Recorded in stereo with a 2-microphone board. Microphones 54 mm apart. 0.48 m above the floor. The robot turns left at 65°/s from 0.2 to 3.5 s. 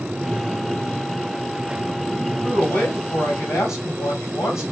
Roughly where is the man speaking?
Behind.